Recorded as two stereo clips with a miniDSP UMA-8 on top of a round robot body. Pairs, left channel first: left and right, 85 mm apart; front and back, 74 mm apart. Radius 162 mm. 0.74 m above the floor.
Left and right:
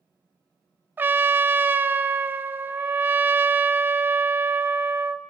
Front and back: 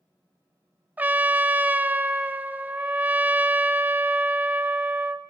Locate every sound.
1.0 s a trumpet: 135° right, 0.6 m